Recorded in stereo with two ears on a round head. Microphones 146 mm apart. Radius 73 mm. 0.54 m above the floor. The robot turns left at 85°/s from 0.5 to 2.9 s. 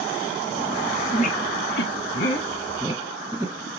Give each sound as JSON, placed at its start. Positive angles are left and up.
{"t": 1.1, "sound": "a squeak", "side_deg": 40, "distance_m": 1.0}